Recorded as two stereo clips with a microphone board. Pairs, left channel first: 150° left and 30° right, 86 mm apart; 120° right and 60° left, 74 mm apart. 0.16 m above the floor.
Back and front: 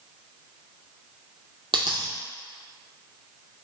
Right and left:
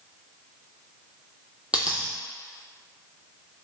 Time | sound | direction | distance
1.7 | a dropped coin | 15° right | 0.6 m